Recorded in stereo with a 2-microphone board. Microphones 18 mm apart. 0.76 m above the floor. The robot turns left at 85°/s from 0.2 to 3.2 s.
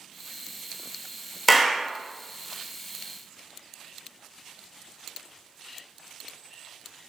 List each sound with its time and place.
1.5 s a clap: 5° left, 0.9 m; by 1.9 s 25° right, 0.9 m